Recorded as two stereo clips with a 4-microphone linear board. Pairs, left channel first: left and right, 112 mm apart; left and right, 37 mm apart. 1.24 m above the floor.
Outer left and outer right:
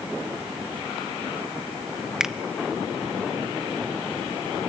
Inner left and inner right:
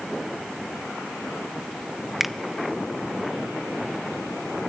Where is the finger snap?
5° right (ahead or behind), 0.6 m.